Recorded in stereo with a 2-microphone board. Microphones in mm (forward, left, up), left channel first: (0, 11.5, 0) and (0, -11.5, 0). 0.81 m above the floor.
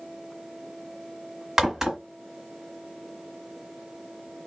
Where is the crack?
20° right (ahead or behind), 1.4 m.